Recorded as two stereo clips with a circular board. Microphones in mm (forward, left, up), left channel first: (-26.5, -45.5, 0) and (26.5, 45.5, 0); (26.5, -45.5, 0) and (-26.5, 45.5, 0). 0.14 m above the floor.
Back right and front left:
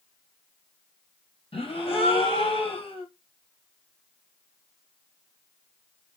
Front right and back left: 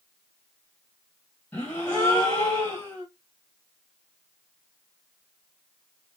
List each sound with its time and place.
1.5 s a gasp: 135° right, 1.6 m